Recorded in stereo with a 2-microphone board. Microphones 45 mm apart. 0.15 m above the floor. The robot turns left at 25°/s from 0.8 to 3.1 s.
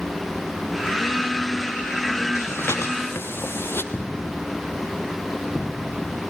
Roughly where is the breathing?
Left.